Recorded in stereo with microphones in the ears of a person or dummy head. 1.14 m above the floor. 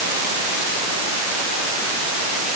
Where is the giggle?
No giggle in this recording.